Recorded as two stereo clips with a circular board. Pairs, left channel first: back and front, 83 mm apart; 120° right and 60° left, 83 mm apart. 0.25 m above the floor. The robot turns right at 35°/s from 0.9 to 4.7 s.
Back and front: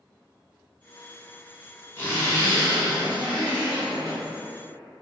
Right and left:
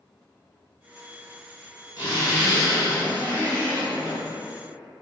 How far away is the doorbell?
No doorbell in this recording.